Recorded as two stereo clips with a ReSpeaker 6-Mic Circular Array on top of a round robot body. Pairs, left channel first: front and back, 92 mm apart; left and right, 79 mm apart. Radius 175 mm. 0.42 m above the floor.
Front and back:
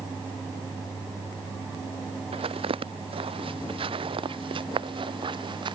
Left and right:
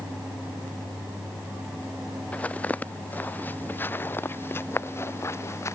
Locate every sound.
2.3 s footsteps: 165° left; by 5.8 s 145° left